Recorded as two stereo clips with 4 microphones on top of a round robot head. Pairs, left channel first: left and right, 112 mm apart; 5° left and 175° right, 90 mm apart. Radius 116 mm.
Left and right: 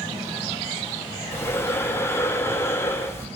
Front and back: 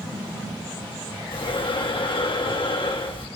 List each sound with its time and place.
1.3 s breathing: 25° left, 3 m